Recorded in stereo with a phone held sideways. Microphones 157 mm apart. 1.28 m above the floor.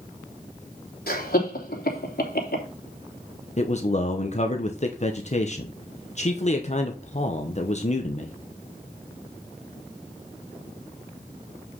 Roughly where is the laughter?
Left.